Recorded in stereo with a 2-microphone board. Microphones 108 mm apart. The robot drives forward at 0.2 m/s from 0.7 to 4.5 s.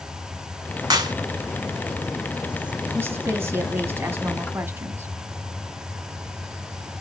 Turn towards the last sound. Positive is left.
turn(degrees=-20)  # may be behind; listen again after turning